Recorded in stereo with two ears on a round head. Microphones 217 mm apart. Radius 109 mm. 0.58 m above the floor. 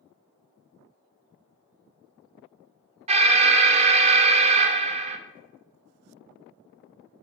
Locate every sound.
3.1 s an alarm: 25° right (ahead or behind), 0.9 m